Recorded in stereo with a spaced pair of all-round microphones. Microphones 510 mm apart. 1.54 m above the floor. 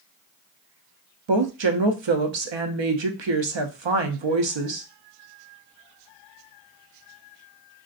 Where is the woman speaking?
60° right (ahead or behind), 0.6 m.